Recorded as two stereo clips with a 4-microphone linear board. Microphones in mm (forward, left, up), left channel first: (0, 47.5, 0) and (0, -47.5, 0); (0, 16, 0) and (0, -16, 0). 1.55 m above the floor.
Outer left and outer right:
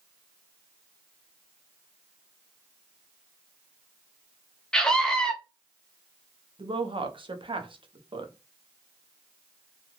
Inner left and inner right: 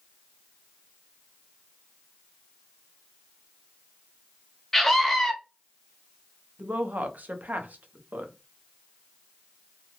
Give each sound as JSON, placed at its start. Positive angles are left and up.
{"t": 4.7, "sound": "a scream", "side_deg": 10, "distance_m": 0.7}
{"t": 6.6, "sound": "a woman speaking", "side_deg": -65, "distance_m": 0.6}